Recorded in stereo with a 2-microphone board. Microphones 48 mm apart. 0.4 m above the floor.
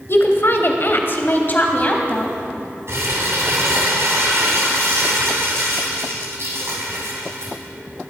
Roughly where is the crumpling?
Right.